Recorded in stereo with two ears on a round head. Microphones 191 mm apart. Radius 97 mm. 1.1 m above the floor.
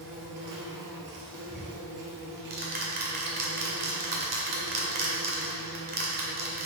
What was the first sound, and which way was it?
An insect, 55° right (ahead or behind).